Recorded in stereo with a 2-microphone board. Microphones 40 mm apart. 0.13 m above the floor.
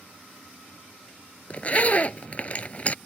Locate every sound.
1.5 s a zipper: 35° left (ahead or behind)